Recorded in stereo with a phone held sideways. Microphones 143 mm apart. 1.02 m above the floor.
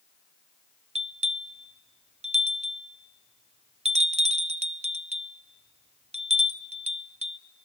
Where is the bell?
50° right (ahead or behind), 0.5 m.